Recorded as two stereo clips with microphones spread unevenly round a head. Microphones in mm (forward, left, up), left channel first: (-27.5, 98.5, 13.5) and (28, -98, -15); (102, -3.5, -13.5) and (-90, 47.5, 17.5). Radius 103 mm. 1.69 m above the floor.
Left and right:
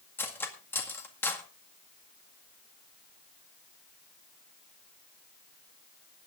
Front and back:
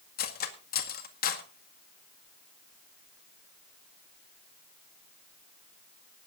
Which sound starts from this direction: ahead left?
Cutlery clinking, at 0.2 s.